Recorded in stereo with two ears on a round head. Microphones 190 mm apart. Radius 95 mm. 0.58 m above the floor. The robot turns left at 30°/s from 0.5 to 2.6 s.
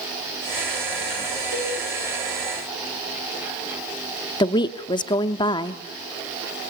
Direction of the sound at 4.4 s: 20° left (ahead or behind).